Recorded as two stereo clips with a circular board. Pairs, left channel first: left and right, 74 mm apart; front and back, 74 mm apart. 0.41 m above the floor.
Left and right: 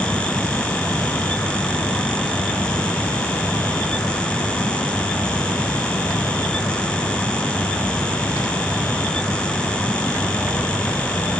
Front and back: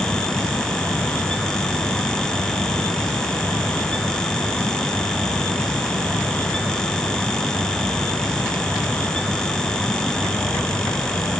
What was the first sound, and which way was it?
Only background noise.